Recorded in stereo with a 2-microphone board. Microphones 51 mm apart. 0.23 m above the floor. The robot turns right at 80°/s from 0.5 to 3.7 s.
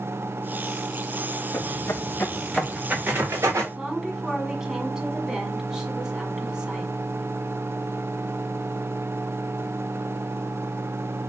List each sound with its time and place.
1.5 s footsteps: 60° left (ahead or behind), 0.8 m; by 3.6 s 80° right, 1.9 m
3.7 s a woman speaking: 15° right (ahead or behind), 1.6 m